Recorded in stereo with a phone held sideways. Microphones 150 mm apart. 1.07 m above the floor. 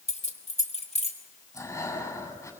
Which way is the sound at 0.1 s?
45° left (ahead or behind).